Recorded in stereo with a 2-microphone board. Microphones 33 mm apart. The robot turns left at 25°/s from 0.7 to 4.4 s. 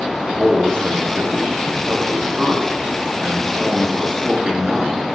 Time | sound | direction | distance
0.2 | a man speaking | 85° right | 1.8 m